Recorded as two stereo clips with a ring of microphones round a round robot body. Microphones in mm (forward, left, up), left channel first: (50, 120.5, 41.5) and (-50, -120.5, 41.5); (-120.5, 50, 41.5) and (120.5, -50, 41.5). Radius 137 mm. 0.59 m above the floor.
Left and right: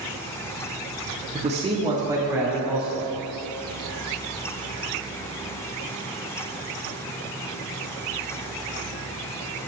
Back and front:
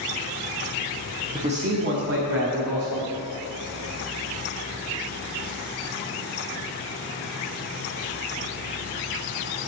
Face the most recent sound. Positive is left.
turn(degrees=-25)